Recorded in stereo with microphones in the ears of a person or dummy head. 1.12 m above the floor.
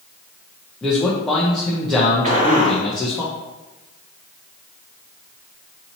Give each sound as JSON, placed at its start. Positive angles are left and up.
{"t": 0.8, "sound": "a man speaking", "side_deg": 5, "distance_m": 0.6}
{"t": 2.2, "sound": "a gunshot", "side_deg": -40, "distance_m": 1.2}